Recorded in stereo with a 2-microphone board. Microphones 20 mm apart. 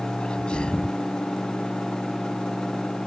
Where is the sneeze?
60° left (ahead or behind).